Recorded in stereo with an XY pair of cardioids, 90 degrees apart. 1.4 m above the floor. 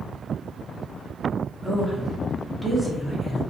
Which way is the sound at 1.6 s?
Straight ahead.